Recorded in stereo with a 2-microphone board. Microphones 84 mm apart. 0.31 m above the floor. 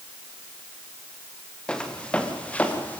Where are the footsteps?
10° left (ahead or behind), 3.5 m; by 3.0 s 20° left (ahead or behind), 3.5 m.